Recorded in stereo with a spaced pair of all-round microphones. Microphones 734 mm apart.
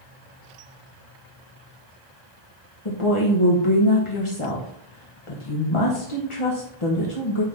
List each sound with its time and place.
2.9 s a woman speaking: 45° left (ahead or behind), 1.2 m